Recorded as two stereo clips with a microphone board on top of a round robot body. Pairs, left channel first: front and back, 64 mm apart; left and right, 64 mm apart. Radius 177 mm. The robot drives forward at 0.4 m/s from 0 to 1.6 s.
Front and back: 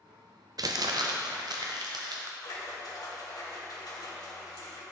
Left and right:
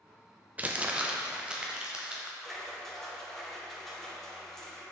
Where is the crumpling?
155° right, 0.6 m; by 2.3 s 165° right, 1.0 m.